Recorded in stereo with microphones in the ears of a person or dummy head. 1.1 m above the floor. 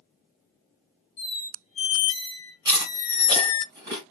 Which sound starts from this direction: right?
Chewing, at 2.6 s.